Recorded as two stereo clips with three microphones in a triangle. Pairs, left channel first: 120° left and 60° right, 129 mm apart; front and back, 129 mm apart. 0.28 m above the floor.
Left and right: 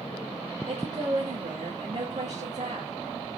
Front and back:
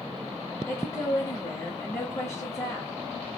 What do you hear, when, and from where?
0.7 s a woman speaking: 65° right, 3 m